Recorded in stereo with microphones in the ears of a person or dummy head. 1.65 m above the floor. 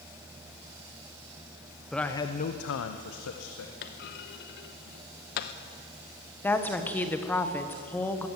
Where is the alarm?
No alarm in this recording.